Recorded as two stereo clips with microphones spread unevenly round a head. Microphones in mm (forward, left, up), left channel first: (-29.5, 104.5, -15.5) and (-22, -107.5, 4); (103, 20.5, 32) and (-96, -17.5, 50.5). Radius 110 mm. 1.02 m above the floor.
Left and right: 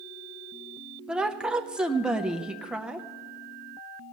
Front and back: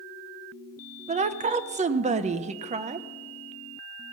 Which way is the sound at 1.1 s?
Straight behind.